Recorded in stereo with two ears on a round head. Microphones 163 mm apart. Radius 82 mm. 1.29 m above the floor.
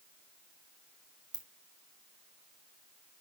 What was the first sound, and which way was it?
A ringtone, 20° right (ahead or behind).